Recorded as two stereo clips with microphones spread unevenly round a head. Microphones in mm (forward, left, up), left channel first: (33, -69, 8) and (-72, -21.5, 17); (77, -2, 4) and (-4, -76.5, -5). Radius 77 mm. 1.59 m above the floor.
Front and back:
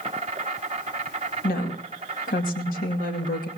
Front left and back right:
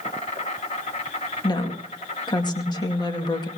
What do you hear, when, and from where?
0.0 s an insect: 100° left, 1.7 m
1.4 s a woman speaking: 5° right, 2 m